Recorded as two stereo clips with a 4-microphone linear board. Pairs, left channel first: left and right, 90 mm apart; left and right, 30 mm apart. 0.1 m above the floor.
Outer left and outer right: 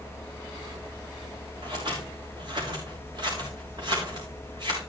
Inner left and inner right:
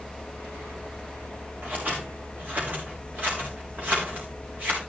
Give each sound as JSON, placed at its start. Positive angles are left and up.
{"t": 1.6, "sound": "scissors", "side_deg": -60, "distance_m": 4.5}